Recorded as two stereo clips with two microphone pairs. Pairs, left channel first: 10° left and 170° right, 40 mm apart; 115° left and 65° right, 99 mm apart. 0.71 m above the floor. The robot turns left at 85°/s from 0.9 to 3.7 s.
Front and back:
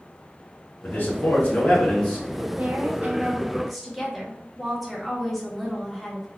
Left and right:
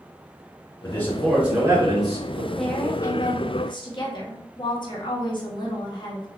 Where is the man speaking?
55° left, 1.2 m; by 2.5 s 80° right, 1.2 m.